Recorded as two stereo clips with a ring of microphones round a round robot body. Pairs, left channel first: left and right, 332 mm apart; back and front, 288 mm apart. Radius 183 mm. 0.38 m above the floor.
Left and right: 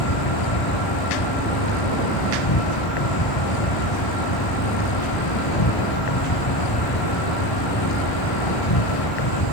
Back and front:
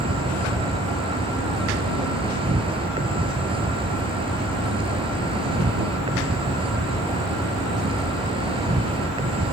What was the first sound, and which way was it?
An insect, 70° left.